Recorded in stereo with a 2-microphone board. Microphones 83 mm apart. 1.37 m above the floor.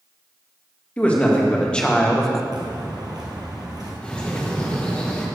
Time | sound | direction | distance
1.0 | a man speaking | 15° left (ahead or behind) | 2 m
2.5 | footsteps | 60° right (ahead or behind) | 2.5 m
4.0 | a bird | 15° left (ahead or behind) | 1.5 m